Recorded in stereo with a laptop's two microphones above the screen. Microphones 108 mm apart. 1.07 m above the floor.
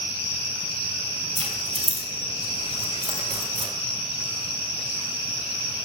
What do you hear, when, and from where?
1.4 s keys jangling: 85° right, 4 m; by 3.7 s 65° right (ahead or behind), 2.5 m